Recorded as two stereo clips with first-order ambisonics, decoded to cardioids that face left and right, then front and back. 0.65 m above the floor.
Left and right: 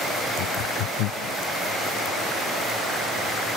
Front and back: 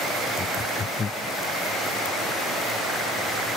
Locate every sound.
0.4 s laughter: 70° left